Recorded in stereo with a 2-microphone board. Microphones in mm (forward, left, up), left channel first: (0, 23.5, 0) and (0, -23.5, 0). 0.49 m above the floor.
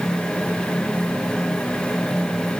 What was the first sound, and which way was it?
Only background noise.